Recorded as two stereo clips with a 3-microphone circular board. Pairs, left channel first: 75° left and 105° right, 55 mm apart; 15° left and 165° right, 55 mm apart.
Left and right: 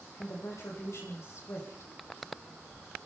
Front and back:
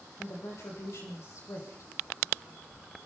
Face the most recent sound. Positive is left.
turn(degrees=45)